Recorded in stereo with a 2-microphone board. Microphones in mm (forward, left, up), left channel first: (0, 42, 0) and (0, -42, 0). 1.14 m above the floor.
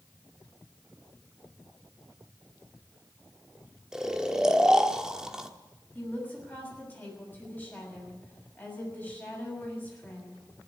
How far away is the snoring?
About 1.1 m.